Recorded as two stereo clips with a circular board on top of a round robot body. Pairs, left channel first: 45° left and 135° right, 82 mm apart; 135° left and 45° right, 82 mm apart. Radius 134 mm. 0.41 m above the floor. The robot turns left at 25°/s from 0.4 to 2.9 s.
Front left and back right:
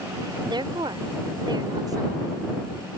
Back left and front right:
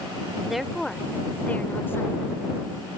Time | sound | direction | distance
0.5 | a woman speaking | 130° right | ?